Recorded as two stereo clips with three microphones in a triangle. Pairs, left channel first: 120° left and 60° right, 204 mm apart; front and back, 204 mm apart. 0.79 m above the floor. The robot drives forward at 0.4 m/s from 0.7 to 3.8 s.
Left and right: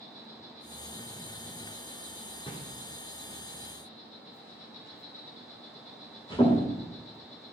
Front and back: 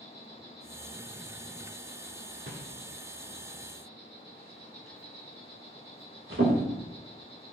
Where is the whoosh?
175° right, 1.4 m.